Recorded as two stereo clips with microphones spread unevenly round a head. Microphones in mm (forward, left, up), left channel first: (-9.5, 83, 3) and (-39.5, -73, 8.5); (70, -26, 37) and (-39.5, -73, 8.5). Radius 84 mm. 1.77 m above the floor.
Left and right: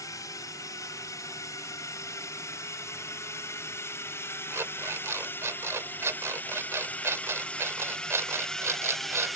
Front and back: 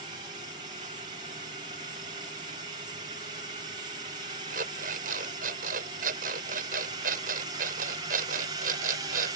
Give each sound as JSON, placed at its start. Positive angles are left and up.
{"t": 0.0, "sound": "a drone", "azimuth_deg": 150}
{"t": 4.5, "sound": "an alarm clock", "azimuth_deg": -170}